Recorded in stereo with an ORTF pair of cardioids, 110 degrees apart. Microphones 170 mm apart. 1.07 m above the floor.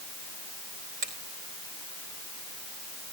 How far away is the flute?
No flute in this recording.